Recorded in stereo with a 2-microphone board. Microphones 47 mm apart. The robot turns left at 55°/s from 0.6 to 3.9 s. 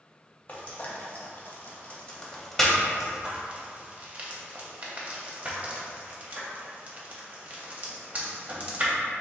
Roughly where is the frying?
Left.